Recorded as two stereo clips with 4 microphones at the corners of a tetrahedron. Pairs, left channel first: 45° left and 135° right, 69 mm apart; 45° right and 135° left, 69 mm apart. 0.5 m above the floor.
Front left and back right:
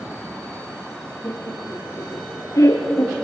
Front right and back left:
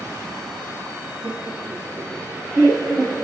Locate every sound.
1.2 s laughter: 105° left, 6.5 m; by 3.1 s 80° left, 6 m